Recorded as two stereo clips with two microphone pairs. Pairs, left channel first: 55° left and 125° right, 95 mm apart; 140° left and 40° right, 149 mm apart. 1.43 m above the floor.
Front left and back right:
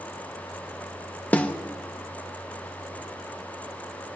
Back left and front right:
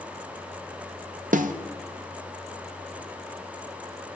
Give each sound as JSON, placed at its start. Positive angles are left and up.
{"t": 1.3, "sound": "a snare drum", "azimuth_deg": -20, "distance_m": 0.6}